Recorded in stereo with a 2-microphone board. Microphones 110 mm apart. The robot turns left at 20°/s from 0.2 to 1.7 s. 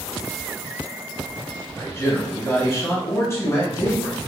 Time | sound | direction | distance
1.8 | a man speaking | 25° left (ahead or behind) | 1.5 m